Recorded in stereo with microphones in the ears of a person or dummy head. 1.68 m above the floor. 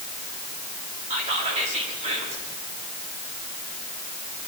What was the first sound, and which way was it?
Whispering, 40° right (ahead or behind).